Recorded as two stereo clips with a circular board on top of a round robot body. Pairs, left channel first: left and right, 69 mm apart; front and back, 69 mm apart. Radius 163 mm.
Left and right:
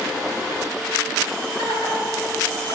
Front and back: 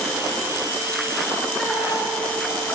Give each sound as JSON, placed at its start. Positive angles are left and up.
{"t": 1.6, "sound": "laughter", "azimuth_deg": 80, "distance_m": 5.0}